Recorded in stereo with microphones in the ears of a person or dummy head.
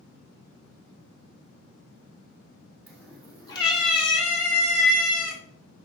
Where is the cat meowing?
10° left (ahead or behind), 1.9 m; by 5.4 s 60° left (ahead or behind), 2 m.